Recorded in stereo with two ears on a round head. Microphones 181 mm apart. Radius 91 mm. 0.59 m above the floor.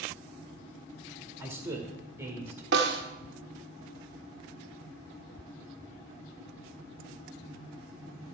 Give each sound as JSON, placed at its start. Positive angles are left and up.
{"t": 1.4, "sound": "a man speaking", "side_deg": -10, "distance_m": 1.8}
{"t": 2.7, "sound": "a snare drum", "side_deg": -60, "distance_m": 1.2}